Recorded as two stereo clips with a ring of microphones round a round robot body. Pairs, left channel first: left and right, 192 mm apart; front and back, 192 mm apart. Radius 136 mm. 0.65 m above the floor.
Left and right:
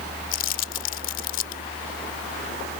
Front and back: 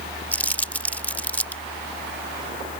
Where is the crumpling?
80° left.